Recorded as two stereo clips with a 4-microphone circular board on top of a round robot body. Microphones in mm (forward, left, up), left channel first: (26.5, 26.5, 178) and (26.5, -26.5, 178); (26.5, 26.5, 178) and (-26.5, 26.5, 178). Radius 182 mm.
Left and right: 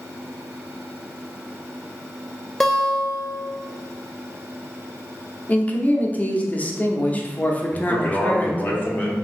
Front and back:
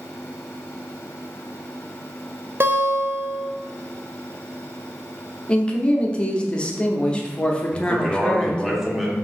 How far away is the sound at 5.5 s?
About 0.8 m.